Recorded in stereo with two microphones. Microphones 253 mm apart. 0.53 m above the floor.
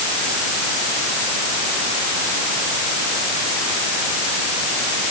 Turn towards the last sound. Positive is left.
No sound to turn to.